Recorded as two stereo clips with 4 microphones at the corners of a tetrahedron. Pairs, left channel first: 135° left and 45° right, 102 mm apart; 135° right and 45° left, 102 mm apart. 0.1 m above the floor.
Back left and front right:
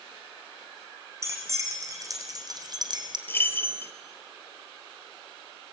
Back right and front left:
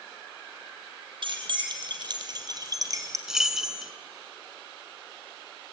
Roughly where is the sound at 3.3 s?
Behind left.